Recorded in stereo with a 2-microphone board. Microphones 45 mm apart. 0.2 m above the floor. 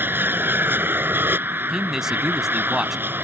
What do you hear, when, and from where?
0.0 s an aircraft: 50° right (ahead or behind)
1.7 s a man speaking: 10° right (ahead or behind)